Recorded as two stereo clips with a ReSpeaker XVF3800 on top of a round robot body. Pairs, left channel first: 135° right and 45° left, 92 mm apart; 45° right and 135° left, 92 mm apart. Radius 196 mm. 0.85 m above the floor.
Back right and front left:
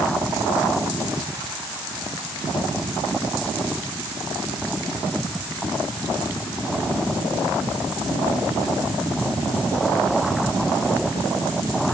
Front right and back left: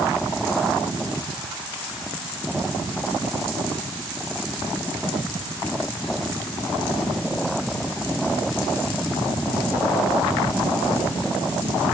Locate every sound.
Only background noise.